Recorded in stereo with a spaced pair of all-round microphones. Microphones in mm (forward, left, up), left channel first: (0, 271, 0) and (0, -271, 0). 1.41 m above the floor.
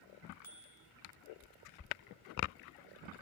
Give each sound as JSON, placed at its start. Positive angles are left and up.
{"t": 0.4, "sound": "a bicycle bell", "side_deg": 70, "distance_m": 5.0}